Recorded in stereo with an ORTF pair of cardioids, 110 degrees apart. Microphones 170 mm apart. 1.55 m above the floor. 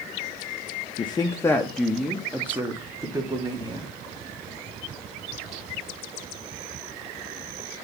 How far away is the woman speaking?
About 0.7 m.